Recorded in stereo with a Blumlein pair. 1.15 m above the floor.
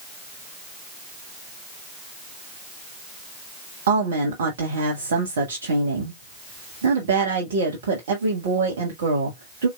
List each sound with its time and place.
3.9 s a woman speaking: 60° right, 1.4 m